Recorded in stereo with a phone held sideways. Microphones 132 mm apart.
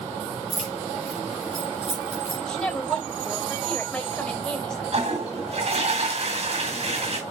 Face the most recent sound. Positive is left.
turn(degrees=-55)  # may be behind; listen again after turning